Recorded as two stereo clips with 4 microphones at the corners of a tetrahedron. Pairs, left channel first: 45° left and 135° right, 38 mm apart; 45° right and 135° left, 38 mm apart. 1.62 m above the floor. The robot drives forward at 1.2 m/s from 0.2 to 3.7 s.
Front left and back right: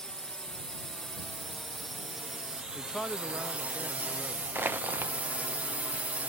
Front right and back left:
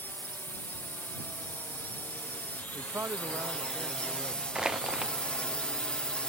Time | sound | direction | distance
0.0 | a drone | 25° right | ?
2.8 | a man speaking | 100° left | ?
4.5 | crushing | 155° right | ?